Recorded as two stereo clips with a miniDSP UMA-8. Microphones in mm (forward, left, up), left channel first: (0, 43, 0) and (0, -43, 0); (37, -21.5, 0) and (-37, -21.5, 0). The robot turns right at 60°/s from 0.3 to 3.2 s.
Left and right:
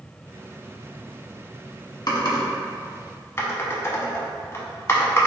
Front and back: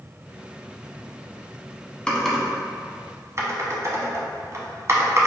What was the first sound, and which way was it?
Typing on a keyboard, 75° left.